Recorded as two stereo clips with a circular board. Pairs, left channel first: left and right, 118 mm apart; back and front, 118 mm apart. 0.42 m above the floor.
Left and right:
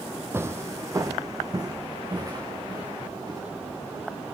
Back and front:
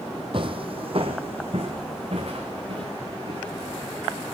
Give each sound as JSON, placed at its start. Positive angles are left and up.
{"t": 0.3, "sound": "footsteps", "azimuth_deg": -25, "distance_m": 0.7}